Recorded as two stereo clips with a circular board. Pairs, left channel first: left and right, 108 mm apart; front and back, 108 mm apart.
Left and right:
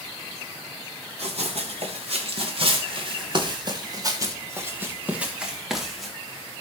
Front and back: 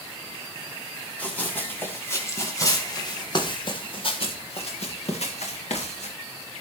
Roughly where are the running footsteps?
Right.